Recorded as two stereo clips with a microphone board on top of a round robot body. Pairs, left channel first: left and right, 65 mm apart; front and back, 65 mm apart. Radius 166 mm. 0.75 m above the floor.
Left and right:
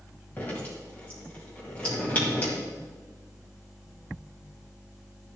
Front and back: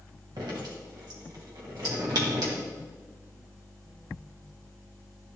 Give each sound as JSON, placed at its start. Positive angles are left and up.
{"t": 0.4, "sound": "dripping", "azimuth_deg": 155, "distance_m": 2.0}